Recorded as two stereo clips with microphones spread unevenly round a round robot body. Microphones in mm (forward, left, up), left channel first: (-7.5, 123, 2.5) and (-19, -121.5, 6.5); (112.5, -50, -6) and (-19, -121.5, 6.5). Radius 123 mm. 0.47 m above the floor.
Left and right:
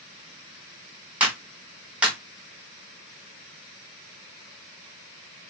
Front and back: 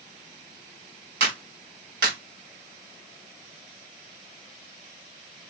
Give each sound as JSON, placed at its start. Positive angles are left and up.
{"t": 1.2, "sound": "a clap", "azimuth_deg": 180, "distance_m": 3.5}